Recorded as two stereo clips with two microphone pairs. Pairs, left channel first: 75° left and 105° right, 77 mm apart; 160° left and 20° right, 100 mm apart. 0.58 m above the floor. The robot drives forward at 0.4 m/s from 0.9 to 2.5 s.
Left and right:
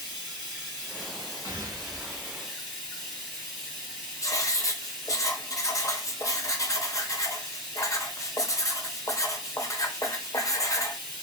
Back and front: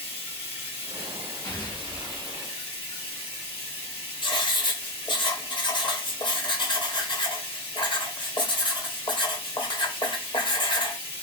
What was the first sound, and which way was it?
Running water, 155° left.